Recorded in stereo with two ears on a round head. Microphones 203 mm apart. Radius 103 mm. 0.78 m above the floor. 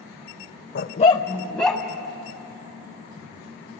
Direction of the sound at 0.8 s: 45° left (ahead or behind).